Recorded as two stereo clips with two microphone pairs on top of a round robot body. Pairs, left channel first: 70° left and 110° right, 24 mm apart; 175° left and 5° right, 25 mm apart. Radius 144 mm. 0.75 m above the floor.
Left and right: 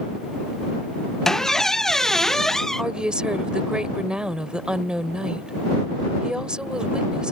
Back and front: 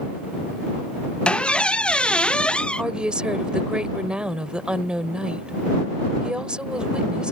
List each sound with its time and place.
1.2 s a squeak: 135° left
2.8 s a woman speaking: 60° right